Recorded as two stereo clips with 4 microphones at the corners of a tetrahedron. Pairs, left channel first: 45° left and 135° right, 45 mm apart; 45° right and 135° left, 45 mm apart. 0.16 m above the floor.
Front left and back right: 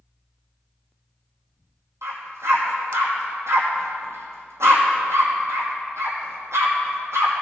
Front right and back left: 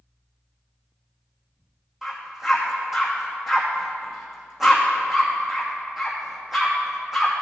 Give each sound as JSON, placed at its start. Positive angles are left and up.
{"t": 2.0, "sound": "a dog barking", "azimuth_deg": -145, "distance_m": 2.5}